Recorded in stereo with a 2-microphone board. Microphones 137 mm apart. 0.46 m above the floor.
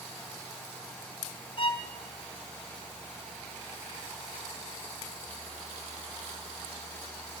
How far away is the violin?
About 1.6 m.